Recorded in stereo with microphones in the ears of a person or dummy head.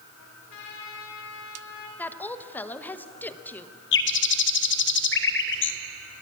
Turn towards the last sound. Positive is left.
turn(degrees=60)  # may be behind; listen again after turning